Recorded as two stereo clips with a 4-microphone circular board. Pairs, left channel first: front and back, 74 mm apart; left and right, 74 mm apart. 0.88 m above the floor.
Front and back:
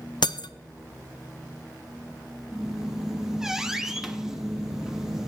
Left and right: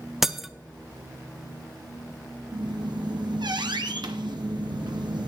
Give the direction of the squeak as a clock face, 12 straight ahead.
3 o'clock.